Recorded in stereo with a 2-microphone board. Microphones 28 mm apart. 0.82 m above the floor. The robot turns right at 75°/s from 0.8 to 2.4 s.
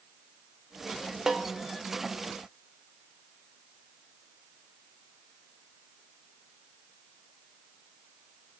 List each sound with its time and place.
1.3 s a snare drum: 15° right (ahead or behind), 0.8 m; by 1.5 s centre (ahead or behind), 0.8 m